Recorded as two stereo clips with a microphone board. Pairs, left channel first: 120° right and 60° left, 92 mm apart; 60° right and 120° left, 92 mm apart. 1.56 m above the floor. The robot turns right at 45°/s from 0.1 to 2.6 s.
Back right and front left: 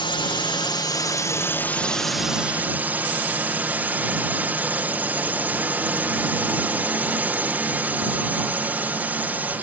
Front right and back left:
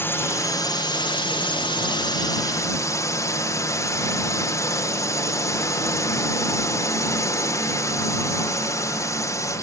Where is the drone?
120° right; by 9.6 s 10° right.